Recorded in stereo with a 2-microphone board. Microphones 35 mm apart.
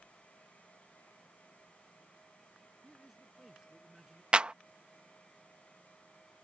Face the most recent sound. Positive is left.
turn(degrees=-30)  # may be behind; listen again after turning